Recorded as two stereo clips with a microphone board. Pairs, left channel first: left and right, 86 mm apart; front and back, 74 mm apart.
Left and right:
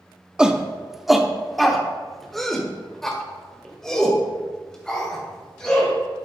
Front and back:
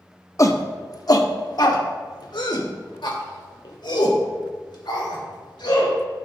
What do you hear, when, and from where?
0.4 s a shout: 15° right, 1.0 m; by 6.0 s 10° left, 4 m